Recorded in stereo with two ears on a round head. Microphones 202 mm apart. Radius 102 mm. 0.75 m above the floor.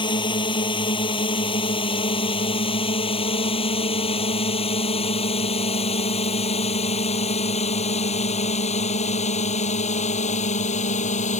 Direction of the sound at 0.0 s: 20° left (ahead or behind).